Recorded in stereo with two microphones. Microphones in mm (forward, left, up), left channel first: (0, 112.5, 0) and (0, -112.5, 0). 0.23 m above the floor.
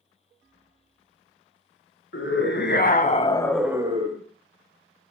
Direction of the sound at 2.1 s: 60° left (ahead or behind).